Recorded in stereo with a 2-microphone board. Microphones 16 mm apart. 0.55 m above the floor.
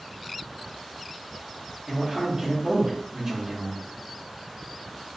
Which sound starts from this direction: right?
A man speaking, at 1.9 s.